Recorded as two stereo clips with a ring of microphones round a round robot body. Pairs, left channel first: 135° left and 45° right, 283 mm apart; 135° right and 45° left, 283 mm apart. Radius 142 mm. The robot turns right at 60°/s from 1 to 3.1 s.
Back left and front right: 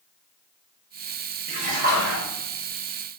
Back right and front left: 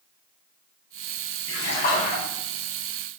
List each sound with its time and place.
1.5 s a splash: 110° right, 0.7 m; by 2.2 s 65° right, 0.7 m